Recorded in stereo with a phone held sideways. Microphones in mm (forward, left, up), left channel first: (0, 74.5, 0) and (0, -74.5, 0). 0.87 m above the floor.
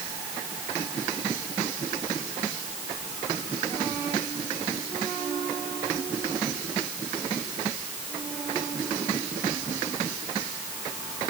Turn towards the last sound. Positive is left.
No sound to turn to.